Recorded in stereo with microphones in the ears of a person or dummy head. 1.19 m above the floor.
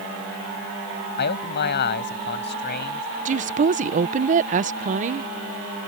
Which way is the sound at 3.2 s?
40° right (ahead or behind).